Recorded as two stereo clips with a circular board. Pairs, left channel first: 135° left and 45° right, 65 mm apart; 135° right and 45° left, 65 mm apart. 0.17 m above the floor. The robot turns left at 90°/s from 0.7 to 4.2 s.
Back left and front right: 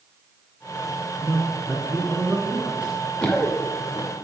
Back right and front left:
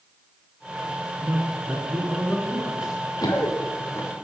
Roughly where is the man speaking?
Ahead left.